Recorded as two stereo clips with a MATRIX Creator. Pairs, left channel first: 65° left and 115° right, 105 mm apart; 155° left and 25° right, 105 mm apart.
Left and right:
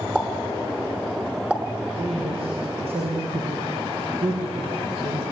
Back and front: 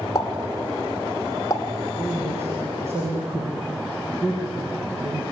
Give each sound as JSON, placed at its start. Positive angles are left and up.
{"t": 0.1, "sound": "a pop", "azimuth_deg": 175, "distance_m": 1.1}
{"t": 2.0, "sound": "a man speaking", "azimuth_deg": -90, "distance_m": 6.0}